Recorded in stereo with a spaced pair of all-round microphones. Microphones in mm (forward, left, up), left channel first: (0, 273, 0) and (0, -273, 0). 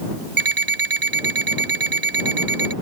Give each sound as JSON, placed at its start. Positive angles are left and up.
{"t": 0.4, "sound": "an alarm clock", "side_deg": -60}